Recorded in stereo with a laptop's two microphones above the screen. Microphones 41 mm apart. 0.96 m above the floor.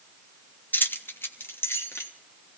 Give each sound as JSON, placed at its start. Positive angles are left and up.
{"t": 0.7, "sound": "keys jangling", "side_deg": 50, "distance_m": 0.8}